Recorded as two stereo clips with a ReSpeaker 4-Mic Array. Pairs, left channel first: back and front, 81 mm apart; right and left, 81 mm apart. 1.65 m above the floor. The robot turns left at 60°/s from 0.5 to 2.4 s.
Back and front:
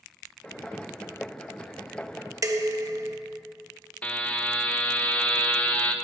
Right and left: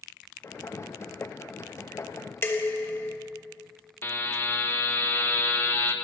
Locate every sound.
2.4 s dishes clattering: 35° right, 1.3 m
4.0 s a buzzer: 125° right, 1.3 m